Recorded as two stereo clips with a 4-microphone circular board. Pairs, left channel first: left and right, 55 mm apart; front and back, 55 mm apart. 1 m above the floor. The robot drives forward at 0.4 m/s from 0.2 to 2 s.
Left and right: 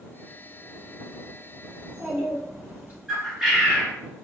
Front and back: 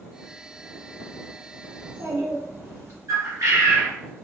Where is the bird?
175° right, 1.3 m.